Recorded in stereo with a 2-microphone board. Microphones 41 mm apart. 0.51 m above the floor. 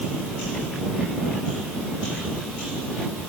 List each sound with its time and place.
Only background noise.